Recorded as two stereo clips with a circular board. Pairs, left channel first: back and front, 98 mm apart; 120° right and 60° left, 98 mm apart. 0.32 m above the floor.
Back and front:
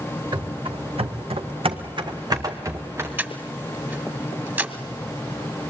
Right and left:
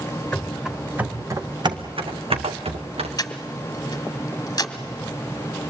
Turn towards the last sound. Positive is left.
turn(degrees=-70)